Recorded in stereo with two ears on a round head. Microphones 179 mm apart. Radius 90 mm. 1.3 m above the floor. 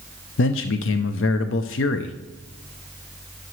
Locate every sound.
0.4 s a man speaking: 70° left (ahead or behind), 0.6 m